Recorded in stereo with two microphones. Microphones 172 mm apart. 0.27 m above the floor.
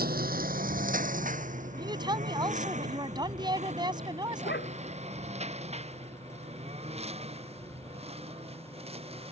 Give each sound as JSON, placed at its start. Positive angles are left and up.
{"t": 0.0, "sound": "a lawn mower", "side_deg": -65}
{"t": 1.8, "sound": "a woman speaking", "side_deg": -25}
{"t": 4.4, "sound": "a dog barking", "side_deg": 90}